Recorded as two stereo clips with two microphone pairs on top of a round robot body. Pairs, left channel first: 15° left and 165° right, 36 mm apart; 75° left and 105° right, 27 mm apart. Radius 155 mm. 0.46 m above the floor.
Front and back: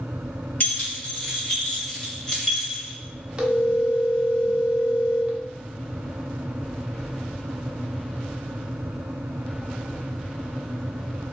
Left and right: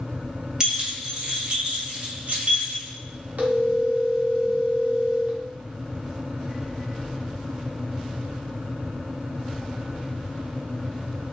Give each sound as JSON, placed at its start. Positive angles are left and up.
{"t": 0.6, "sound": "keys jangling", "azimuth_deg": -40, "distance_m": 1.7}
{"t": 3.4, "sound": "a phone ringing", "azimuth_deg": -110, "distance_m": 1.4}